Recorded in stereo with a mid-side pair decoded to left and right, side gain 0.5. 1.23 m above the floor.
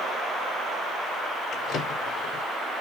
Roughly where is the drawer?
Ahead left.